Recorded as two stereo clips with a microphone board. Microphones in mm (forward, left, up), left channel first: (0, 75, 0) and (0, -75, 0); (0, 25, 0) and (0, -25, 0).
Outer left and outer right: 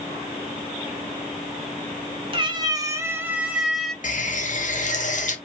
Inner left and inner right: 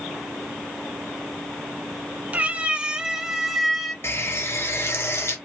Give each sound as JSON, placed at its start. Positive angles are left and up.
{"t": 2.3, "sound": "a cat meowing", "side_deg": -35, "distance_m": 1.3}
{"t": 4.0, "sound": "a running tap", "side_deg": 55, "distance_m": 1.1}